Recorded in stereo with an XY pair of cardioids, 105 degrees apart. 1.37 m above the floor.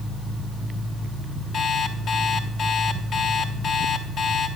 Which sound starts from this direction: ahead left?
An alarm clock, at 1.5 s.